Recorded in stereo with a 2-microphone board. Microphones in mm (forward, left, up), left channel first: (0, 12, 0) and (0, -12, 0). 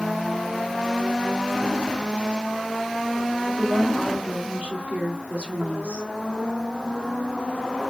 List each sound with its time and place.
3.5 s a woman speaking: 80° right, 1.9 m